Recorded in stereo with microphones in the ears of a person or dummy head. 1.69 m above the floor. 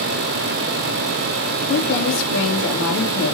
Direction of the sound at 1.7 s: 65° left (ahead or behind).